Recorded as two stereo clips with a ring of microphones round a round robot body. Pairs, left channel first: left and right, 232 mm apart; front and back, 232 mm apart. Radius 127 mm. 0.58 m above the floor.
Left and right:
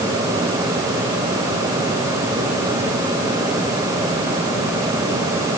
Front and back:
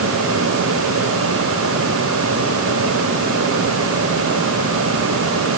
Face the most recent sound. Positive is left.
No sound to turn to.